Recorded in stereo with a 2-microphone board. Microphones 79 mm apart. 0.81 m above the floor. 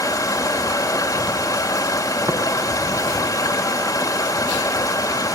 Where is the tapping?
75° right (ahead or behind), 4 m.